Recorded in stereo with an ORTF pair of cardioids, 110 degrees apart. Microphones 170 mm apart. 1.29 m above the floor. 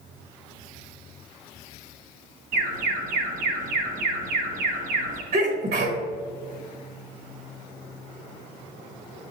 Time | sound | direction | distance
2.5 | an alarm | 65° right | 1.4 m
5.3 | a sneeze | 70° right | 1.3 m